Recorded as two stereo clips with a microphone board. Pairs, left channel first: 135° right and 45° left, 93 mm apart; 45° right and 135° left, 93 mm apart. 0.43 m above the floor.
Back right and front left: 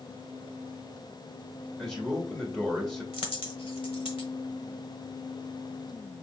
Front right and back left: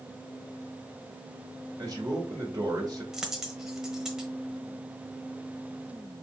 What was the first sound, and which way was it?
A man speaking, 140° left.